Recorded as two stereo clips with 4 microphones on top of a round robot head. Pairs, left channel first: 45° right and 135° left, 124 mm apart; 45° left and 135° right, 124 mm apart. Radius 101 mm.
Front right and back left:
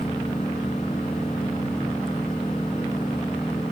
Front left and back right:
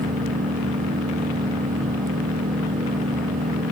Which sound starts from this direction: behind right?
An engine running, at 0.0 s.